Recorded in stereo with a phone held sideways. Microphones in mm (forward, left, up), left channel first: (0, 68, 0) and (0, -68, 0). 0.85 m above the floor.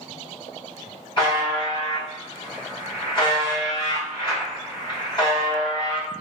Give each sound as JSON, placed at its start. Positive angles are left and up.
{"t": 1.2, "sound": "a buzzer", "side_deg": 40, "distance_m": 1.4}